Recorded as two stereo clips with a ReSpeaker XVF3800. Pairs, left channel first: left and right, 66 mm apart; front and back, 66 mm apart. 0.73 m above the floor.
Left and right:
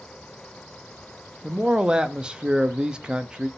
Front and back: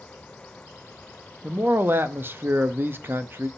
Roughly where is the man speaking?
Behind right.